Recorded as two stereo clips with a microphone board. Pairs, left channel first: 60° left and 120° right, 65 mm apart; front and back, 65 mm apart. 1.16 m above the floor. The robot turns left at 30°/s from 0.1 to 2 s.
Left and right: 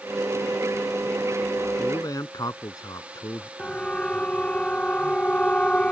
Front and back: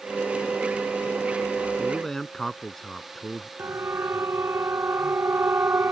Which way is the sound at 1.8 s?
90° left.